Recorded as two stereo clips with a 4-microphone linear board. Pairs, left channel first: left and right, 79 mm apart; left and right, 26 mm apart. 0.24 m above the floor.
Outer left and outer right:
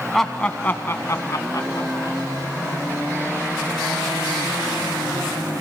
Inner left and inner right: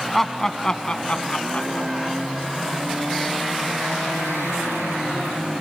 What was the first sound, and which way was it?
Laughter, centre (ahead or behind).